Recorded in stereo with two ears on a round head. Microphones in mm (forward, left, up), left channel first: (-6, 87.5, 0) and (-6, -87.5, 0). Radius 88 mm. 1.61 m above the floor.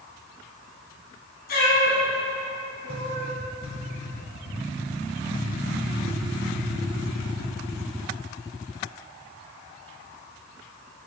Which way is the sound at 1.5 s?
55° left (ahead or behind).